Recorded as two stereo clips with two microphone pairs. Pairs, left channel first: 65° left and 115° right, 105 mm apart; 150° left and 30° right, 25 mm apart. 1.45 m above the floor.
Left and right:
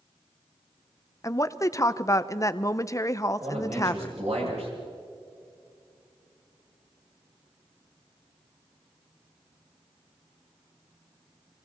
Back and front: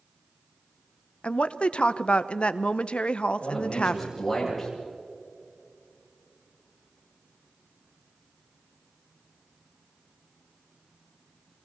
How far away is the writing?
No writing in this recording.